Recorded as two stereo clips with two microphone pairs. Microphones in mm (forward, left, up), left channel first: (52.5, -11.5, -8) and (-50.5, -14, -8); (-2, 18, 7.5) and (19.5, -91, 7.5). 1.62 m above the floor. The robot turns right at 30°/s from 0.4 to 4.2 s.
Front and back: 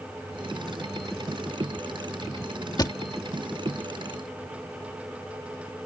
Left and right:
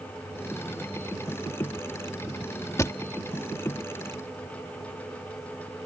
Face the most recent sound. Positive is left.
turn(degrees=85)